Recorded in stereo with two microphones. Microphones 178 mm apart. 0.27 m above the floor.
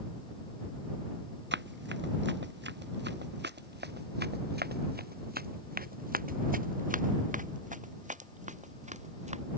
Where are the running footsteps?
85° right; by 9.4 s 40° right (ahead or behind).